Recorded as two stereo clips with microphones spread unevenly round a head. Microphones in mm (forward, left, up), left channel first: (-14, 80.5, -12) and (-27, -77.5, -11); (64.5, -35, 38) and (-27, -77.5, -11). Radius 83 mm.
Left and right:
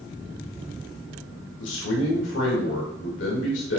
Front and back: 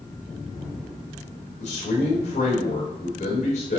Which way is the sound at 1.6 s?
65° left.